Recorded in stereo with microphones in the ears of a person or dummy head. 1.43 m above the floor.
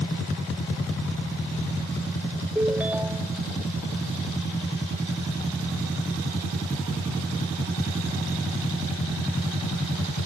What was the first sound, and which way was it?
A ringtone, 15° right (ahead or behind).